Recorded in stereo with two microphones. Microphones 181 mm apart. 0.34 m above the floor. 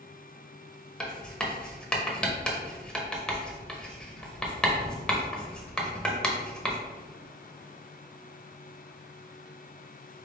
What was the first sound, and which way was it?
Writing, 5° left (ahead or behind).